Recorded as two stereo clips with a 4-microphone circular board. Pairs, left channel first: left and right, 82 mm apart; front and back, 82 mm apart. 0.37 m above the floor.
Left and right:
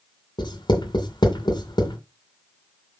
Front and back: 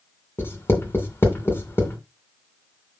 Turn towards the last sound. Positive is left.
turn(degrees=60)